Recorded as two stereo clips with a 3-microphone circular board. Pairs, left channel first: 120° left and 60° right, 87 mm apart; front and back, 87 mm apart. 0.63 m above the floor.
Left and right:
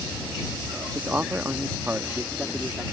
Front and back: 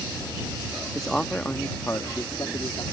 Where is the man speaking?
90° right; by 2.8 s 10° left.